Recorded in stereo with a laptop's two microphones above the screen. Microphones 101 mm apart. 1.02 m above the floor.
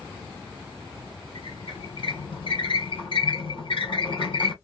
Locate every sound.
1.4 s a squeak: 55° left (ahead or behind), 2 m